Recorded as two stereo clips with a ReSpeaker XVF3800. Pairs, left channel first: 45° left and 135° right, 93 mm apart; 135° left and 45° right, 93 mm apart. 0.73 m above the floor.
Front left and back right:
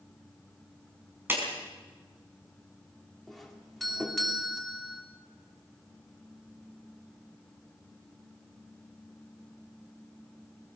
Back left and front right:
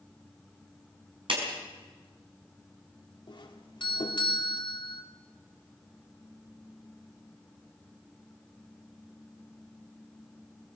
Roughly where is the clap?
Right.